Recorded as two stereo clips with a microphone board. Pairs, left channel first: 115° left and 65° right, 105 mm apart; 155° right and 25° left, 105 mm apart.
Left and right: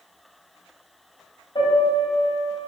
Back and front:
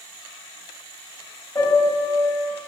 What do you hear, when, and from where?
1.6 s a piano: 145° left, 2.5 m